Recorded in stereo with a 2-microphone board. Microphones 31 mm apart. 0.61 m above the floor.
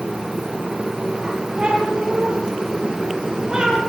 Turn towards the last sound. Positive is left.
turn(degrees=-25)  # may be behind; listen again after turning